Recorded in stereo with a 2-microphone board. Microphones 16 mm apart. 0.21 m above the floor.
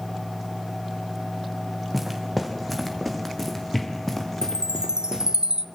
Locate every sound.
1.9 s footsteps: 5° right (ahead or behind), 4.5 m; by 5.3 s 30° left (ahead or behind), 5.5 m
4.4 s a chime: 55° right (ahead or behind), 1.0 m